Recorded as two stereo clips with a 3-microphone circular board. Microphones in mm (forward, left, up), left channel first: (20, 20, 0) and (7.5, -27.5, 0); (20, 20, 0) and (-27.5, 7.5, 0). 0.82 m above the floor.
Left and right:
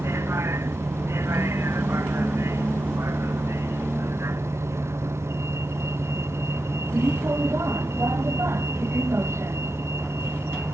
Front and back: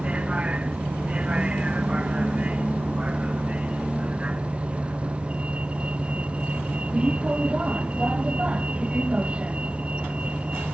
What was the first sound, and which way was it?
A vehicle, 100° right.